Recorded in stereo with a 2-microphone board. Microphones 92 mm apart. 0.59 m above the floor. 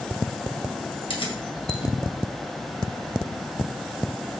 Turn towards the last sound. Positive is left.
turn(degrees=75)  # may be behind; listen again after turning